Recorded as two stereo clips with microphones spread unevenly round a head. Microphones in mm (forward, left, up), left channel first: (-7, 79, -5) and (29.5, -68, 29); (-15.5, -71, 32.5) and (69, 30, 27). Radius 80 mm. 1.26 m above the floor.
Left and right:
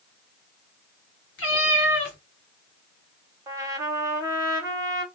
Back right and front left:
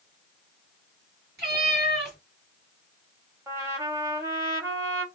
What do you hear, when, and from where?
1.4 s a cat meowing: 120° left, 1.6 m
3.5 s a trumpet: 20° right, 1.0 m